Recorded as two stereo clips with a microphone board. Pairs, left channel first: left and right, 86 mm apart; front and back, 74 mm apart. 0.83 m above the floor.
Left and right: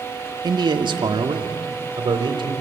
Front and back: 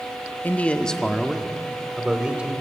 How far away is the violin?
No violin in this recording.